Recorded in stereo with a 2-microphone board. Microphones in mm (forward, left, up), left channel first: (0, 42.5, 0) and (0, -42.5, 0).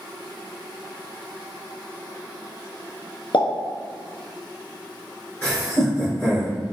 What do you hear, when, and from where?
3.3 s a pop: 75° left (ahead or behind), 0.6 m
5.4 s laughter: 30° left (ahead or behind), 0.8 m